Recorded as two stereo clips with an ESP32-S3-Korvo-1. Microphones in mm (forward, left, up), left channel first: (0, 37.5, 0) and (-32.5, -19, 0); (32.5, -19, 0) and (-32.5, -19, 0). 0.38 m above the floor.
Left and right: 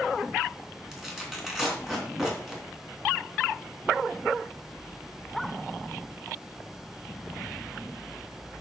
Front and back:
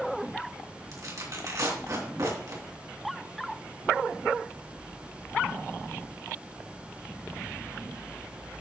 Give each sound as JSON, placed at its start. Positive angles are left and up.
{"t": 0.9, "sound": "tearing paper", "azimuth_deg": 155, "distance_m": 3.0}